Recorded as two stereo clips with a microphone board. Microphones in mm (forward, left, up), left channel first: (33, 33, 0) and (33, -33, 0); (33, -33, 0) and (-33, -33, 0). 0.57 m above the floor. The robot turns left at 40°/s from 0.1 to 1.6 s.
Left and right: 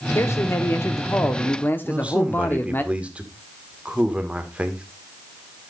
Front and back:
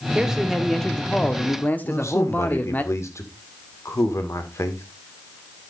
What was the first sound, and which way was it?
A man speaking, 105° left.